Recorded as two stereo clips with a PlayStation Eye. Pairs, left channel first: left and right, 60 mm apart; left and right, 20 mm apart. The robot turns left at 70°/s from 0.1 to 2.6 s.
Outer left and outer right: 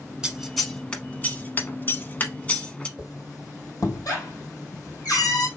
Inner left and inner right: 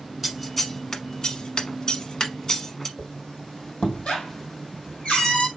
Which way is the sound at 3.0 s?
70° left (ahead or behind).